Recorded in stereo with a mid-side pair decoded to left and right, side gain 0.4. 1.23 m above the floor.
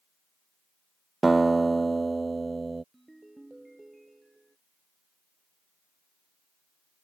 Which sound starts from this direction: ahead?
A ringtone, at 2.9 s.